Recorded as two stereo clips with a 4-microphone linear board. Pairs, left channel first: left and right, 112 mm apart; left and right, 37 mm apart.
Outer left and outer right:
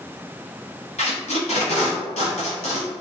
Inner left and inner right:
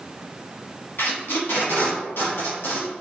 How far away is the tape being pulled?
About 1.0 m.